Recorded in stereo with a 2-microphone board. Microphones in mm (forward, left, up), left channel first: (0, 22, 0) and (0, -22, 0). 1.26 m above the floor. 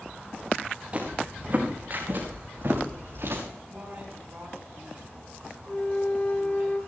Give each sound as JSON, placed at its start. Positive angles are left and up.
{"t": 0.9, "sound": "footsteps", "side_deg": -30, "distance_m": 4.5}
{"t": 3.7, "sound": "a woman speaking", "side_deg": -45, "distance_m": 10.0}
{"t": 5.7, "sound": "a flute", "side_deg": 35, "distance_m": 2.5}